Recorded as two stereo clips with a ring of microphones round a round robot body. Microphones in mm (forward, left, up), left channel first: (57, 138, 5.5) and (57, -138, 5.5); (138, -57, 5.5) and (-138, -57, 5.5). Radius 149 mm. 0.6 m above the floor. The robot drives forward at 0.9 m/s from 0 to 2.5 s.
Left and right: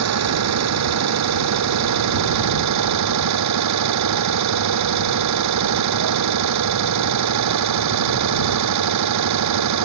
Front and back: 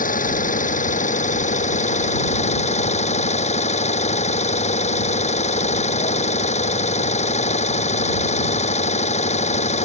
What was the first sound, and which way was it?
An engine running, 60° right.